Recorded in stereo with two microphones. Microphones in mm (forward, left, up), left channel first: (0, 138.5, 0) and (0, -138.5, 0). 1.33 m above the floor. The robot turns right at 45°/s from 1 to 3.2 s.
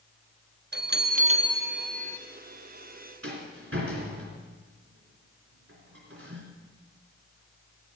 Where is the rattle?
55° right (ahead or behind), 3 m.